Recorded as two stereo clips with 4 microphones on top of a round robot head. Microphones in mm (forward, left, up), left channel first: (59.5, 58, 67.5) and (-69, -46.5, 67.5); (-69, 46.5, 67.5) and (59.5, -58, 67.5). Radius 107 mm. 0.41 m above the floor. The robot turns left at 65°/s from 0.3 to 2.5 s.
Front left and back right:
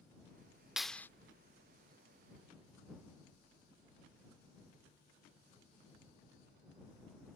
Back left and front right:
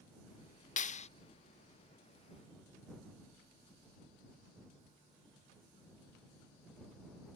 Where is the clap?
135° left; by 1.1 s 110° left.